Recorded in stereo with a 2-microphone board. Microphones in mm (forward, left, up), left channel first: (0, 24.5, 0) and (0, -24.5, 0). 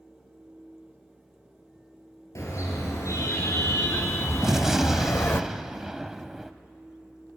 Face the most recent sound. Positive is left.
turn(degrees=-10)  # may be behind; listen again after turning